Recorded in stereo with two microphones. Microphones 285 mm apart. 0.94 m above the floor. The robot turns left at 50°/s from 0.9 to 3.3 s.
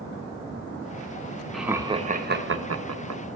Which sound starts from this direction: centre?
Laughter, at 1.5 s.